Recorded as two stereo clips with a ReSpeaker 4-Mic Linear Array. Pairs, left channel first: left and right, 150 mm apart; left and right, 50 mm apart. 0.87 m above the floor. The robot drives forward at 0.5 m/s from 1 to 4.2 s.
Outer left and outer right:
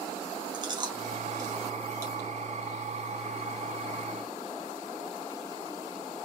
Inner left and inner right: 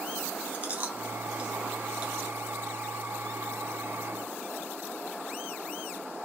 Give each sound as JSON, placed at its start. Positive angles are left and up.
{"t": 0.5, "sound": "chewing", "side_deg": -30, "distance_m": 1.3}